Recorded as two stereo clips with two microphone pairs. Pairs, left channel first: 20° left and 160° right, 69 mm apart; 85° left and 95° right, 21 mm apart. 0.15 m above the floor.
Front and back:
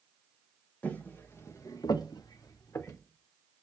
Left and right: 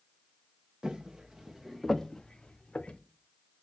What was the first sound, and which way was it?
Footsteps, 50° right.